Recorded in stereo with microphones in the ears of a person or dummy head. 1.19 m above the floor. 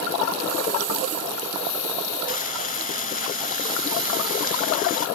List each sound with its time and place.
2.3 s frying: 50° left (ahead or behind)